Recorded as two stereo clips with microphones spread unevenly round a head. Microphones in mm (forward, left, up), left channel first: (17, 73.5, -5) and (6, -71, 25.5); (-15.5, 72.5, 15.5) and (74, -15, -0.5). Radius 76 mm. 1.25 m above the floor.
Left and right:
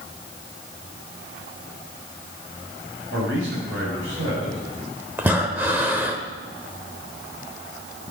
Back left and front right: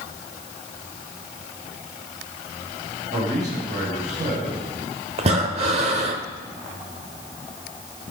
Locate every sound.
3.1 s a man speaking: 90° right, 6.5 m
5.2 s breathing: 35° right, 1.2 m